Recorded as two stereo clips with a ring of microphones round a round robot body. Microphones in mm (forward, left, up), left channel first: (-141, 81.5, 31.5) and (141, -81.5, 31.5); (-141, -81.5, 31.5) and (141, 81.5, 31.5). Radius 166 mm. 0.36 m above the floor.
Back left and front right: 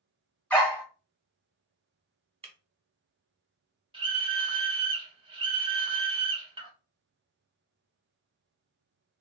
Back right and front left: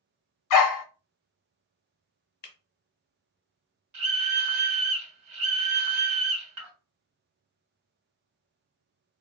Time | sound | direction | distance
0.5 | a dog barking | 125° right | 0.8 m
2.4 | breaking glass | 100° right | 0.8 m
3.9 | a scream | 40° left | 1.1 m